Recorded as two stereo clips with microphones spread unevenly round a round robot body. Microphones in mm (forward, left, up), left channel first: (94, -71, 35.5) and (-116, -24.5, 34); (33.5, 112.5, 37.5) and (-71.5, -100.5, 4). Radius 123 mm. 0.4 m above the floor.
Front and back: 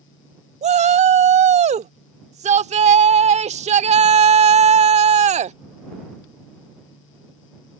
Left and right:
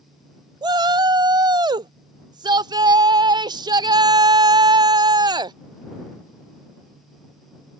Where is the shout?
165° right.